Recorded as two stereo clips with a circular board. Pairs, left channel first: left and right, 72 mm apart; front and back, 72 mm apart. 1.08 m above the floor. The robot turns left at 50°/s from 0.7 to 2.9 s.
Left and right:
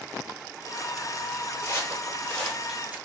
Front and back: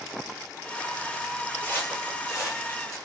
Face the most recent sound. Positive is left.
turn(degrees=-25)